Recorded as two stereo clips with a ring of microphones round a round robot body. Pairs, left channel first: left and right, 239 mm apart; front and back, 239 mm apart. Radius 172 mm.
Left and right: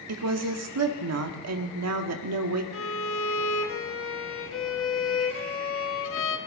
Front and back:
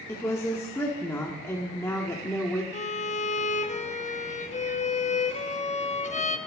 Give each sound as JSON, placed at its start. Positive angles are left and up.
{"t": 0.1, "sound": "a woman speaking", "azimuth_deg": -80, "distance_m": 1.5}
{"t": 2.7, "sound": "a violin", "azimuth_deg": 60, "distance_m": 1.2}